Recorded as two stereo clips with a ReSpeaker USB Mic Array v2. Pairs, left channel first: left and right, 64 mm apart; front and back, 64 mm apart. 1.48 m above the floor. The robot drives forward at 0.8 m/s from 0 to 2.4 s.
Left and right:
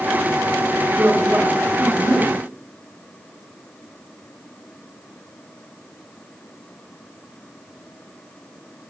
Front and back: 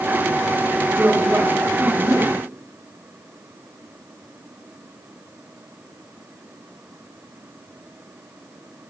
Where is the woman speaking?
150° right, 3 m; by 2.4 s 160° right, 4 m.